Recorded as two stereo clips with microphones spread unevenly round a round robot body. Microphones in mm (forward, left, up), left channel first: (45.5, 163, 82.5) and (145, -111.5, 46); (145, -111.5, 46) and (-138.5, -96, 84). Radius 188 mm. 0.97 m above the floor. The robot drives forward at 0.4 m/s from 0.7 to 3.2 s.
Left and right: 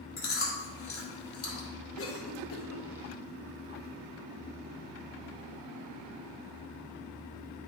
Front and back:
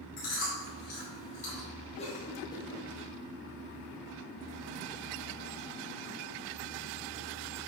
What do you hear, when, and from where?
0.2 s chewing: 65° left, 3.5 m; by 1.7 s 70° left, 3.5 m
2.0 s a cough: 65° left, 1.7 m; by 2.9 s 75° left, 1.6 m